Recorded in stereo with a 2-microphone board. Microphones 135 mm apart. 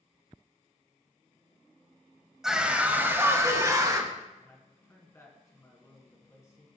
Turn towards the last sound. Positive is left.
turn(degrees=20)  # may be behind; listen again after turning